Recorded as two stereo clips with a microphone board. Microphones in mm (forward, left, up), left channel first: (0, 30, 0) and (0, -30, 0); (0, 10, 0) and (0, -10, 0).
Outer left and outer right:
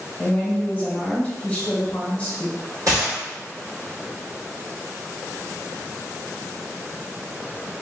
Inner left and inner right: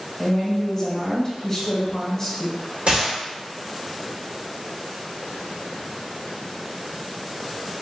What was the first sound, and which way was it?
A woman speaking, 20° left (ahead or behind).